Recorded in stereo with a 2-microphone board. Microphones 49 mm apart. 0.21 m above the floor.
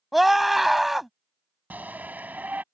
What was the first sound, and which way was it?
A scream, 5° right (ahead or behind).